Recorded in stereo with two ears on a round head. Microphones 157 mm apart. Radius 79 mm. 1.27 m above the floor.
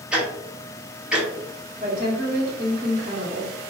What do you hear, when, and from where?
0.1 s ticking: 5° right (ahead or behind), 0.8 m
1.8 s a woman speaking: 45° right (ahead or behind), 1.3 m